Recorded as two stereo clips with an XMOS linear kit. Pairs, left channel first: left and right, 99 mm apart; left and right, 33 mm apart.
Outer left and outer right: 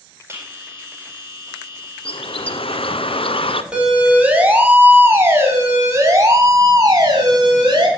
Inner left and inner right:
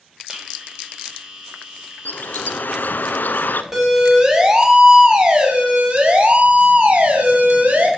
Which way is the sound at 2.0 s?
70° left (ahead or behind).